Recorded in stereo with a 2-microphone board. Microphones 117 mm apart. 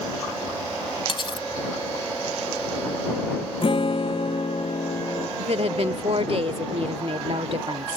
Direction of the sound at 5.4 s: 60° right (ahead or behind).